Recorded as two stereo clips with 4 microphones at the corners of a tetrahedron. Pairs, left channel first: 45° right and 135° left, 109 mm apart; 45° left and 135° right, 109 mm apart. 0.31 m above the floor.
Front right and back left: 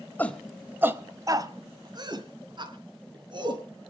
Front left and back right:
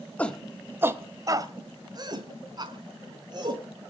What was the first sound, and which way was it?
A shout, 10° right.